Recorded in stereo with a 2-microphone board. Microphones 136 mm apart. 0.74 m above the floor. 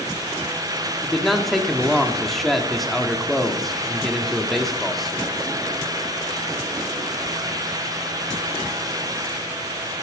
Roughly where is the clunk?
No clunk in this recording.